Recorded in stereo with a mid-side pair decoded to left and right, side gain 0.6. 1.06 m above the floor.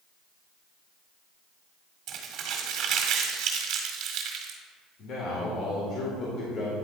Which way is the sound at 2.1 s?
65° right.